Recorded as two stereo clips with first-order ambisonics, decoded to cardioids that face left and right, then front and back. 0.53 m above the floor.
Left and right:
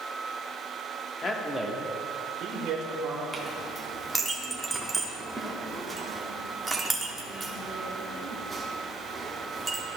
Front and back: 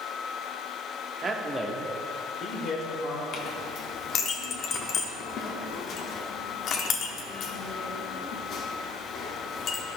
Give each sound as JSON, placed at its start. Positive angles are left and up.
{"t": 1.2, "sound": "a man speaking", "azimuth_deg": 130, "distance_m": 0.7}
{"t": 3.3, "sound": "a clink", "azimuth_deg": -15, "distance_m": 0.8}